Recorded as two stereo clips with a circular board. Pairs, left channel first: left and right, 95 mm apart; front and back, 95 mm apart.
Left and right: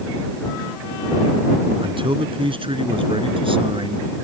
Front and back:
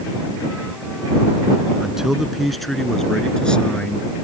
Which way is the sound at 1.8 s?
95° right.